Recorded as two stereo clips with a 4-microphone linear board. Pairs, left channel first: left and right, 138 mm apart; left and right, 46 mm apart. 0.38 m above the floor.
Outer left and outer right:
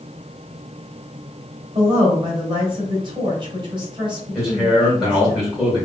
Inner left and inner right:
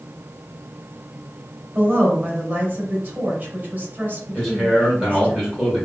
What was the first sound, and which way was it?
A woman speaking, 35° right (ahead or behind).